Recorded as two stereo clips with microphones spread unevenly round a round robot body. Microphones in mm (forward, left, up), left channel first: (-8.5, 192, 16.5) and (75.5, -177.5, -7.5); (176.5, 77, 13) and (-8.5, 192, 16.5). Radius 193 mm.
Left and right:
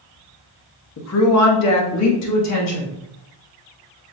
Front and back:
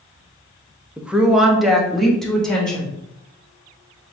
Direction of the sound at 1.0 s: 65° left.